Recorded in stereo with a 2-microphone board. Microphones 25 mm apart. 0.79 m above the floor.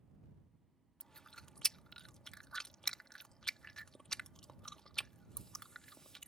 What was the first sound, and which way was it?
Chewing, 25° left (ahead or behind).